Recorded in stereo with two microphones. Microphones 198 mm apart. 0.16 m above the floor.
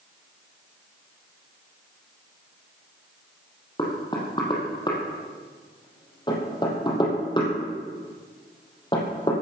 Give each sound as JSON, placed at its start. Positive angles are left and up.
{"t": 3.8, "sound": "knocking", "side_deg": 25, "distance_m": 5.0}